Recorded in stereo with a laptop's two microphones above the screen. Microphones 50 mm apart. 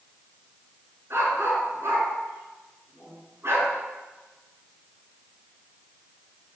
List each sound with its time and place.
1.1 s a dog barking: 50° right (ahead or behind), 4 m